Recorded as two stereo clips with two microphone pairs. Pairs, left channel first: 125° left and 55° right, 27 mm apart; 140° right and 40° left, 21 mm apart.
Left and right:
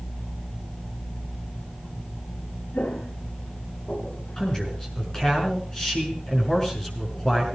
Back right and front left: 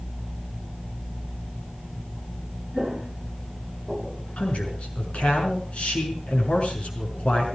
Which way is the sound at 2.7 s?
115° left.